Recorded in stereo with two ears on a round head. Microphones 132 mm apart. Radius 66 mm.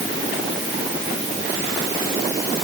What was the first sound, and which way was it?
Only background noise.